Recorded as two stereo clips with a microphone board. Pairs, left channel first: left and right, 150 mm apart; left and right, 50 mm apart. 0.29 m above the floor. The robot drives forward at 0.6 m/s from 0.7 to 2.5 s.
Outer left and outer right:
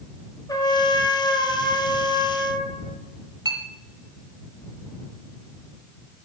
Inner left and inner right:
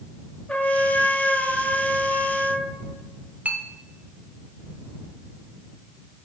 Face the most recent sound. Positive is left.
turn(degrees=-25)  # may be behind; listen again after turning